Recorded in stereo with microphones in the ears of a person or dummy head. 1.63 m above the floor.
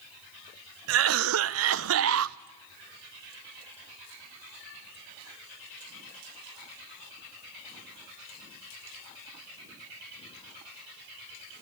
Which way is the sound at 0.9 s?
75° right (ahead or behind).